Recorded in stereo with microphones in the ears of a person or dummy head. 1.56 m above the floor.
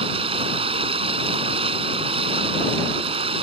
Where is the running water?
35° right (ahead or behind).